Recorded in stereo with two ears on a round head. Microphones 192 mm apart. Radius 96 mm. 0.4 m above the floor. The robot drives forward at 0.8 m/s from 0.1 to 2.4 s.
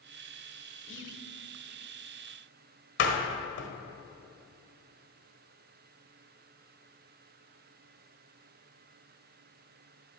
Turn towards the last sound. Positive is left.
turn(degrees=55)  # may be behind; listen again after turning